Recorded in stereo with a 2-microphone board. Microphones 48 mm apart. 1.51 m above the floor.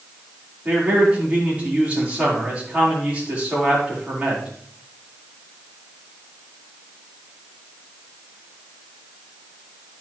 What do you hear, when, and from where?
0.7 s a man speaking: 30° right (ahead or behind), 5 m